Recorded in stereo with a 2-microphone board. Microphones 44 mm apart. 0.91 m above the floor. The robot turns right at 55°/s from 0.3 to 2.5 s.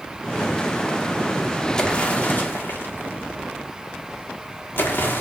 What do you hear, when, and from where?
1.8 s an explosion: 10° left (ahead or behind), 2 m; by 5.2 s 50° left (ahead or behind), 2 m